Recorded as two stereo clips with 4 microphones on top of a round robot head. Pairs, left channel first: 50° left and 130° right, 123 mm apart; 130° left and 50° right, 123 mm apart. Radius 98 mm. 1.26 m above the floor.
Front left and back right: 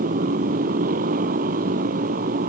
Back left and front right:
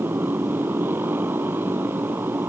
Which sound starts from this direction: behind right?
A motorcycle, at 0.0 s.